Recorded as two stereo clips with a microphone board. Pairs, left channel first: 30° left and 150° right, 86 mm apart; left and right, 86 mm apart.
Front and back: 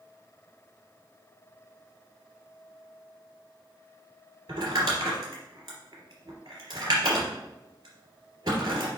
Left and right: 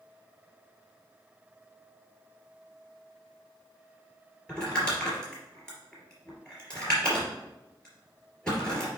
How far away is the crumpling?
About 3 m.